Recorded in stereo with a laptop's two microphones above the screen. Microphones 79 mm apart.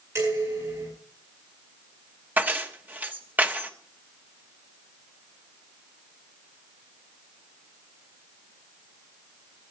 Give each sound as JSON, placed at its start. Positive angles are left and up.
{"t": 0.1, "sound": "dishes clattering", "side_deg": -40, "distance_m": 8.0}
{"t": 2.4, "sound": "keys jangling", "side_deg": -20, "distance_m": 1.0}